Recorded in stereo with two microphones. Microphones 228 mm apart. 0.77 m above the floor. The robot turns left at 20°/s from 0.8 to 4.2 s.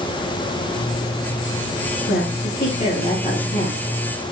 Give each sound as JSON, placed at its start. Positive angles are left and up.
{"t": 2.1, "sound": "a woman speaking", "azimuth_deg": 55, "distance_m": 4.0}